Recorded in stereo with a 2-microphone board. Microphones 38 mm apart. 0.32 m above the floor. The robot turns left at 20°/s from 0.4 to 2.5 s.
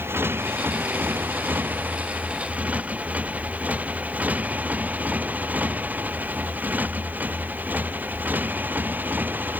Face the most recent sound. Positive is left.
turn(degrees=-50)  # may be behind; listen again after turning